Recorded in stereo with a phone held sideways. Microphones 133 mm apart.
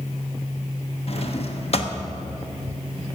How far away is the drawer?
About 1.0 m.